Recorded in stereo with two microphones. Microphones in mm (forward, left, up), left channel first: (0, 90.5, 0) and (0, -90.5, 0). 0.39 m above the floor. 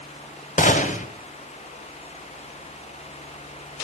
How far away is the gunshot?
About 1.8 m.